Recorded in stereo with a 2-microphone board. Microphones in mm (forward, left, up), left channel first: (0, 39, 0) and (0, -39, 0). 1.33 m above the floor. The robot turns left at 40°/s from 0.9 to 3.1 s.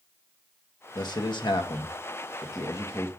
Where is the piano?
No piano in this recording.